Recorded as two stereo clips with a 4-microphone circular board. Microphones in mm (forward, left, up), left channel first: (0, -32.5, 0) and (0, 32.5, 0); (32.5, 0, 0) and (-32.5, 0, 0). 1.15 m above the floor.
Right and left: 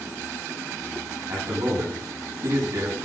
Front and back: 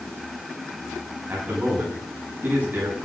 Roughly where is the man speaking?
Behind left.